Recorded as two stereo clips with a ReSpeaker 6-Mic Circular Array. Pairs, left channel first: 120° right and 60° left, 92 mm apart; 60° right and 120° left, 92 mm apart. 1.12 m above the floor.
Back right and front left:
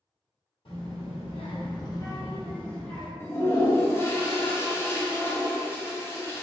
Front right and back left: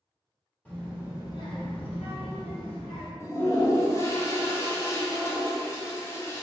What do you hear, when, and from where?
0.7 s a child speaking: 135° right, 1.2 m; by 3.1 s 35° right, 1.6 m
3.2 s a toilet flushing: 85° right, 0.5 m